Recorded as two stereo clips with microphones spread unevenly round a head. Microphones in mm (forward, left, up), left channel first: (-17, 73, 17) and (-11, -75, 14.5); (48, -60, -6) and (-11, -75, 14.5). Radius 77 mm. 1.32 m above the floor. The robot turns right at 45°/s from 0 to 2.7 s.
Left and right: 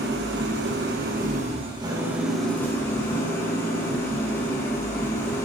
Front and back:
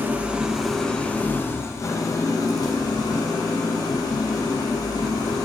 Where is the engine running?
105° right, 1.3 m; by 5.5 s 20° left, 1.3 m.